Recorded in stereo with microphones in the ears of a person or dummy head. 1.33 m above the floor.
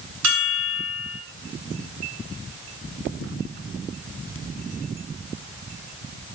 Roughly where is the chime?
Right.